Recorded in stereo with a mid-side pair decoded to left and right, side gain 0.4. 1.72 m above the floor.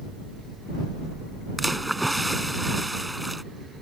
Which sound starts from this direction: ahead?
A splash, at 1.6 s.